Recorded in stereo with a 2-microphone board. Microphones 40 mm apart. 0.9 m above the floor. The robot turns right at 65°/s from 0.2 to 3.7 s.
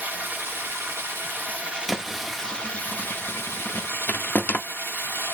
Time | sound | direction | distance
0.0 | running water | 130° right | 1.7 m
1.9 | a thud | centre (ahead or behind) | 0.6 m